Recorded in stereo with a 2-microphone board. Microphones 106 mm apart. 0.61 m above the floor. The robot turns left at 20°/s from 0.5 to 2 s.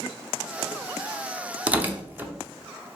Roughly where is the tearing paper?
Centre.